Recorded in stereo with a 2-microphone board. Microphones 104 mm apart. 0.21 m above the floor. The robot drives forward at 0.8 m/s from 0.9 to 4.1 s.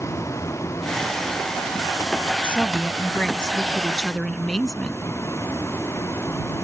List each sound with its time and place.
0.0 s a vehicle: 30° left (ahead or behind); by 6.6 s 25° left (ahead or behind)
2.4 s a woman speaking: 10° left (ahead or behind); by 5.0 s 5° left (ahead or behind)